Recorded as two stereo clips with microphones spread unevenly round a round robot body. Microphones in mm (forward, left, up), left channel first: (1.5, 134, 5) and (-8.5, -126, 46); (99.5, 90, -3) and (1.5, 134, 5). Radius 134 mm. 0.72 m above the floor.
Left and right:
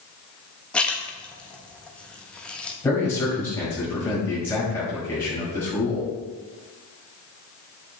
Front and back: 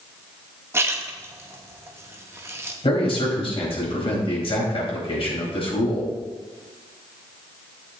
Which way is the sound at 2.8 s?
5° left.